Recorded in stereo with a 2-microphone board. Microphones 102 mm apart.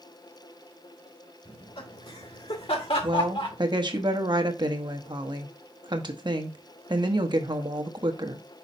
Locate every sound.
1.4 s laughter: 65° left (ahead or behind), 3 m; by 3.6 s 60° left (ahead or behind), 2.5 m
3.0 s a woman speaking: 45° right (ahead or behind), 1.0 m